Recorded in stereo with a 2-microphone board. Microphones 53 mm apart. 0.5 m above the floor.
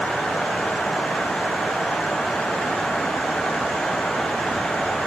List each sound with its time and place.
Only background noise.